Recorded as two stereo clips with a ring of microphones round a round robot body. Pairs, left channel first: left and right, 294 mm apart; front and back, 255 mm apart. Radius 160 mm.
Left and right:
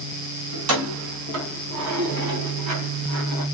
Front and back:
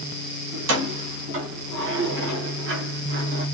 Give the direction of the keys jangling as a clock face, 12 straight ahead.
4 o'clock.